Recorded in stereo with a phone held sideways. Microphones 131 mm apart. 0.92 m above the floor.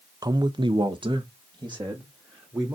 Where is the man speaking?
30° right (ahead or behind), 0.7 m.